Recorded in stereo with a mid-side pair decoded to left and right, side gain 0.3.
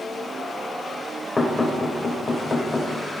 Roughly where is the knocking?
Ahead left.